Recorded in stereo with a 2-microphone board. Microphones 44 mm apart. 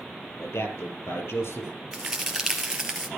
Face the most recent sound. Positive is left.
turn(degrees=-15)  # may be behind; listen again after turning